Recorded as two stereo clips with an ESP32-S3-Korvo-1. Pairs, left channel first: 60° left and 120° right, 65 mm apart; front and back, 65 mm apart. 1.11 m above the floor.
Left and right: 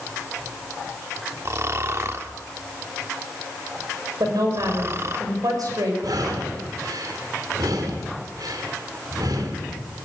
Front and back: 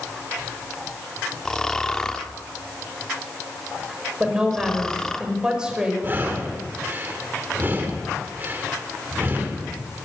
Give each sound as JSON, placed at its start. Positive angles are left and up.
{"t": 1.4, "sound": "snoring", "azimuth_deg": -80, "distance_m": 1.2}
{"t": 4.2, "sound": "a woman speaking", "azimuth_deg": -105, "distance_m": 5.5}
{"t": 6.0, "sound": "breathing", "azimuth_deg": -125, "distance_m": 2.5}